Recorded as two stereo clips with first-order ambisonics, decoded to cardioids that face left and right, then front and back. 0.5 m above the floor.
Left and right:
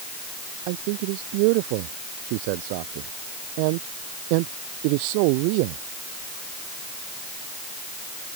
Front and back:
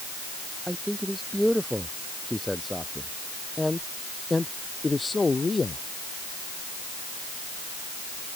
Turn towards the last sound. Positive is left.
turn(degrees=-80)